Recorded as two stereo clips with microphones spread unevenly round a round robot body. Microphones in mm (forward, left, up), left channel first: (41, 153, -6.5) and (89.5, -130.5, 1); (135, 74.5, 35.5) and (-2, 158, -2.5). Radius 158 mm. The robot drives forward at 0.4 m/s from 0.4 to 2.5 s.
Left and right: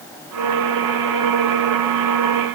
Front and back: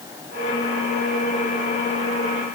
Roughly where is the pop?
I don't hear a pop.